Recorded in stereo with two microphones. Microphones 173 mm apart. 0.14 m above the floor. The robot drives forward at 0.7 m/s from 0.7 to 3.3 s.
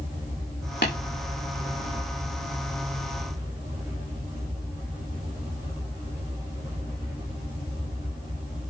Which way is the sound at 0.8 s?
85° left.